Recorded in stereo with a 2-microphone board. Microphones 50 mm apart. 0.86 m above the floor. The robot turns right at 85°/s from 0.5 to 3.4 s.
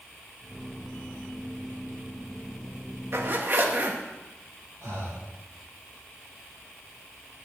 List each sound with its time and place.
3.1 s a zipper: 55° right (ahead or behind), 1.2 m; by 4.0 s 40° right (ahead or behind), 1.2 m
4.8 s breathing: 80° right, 4.5 m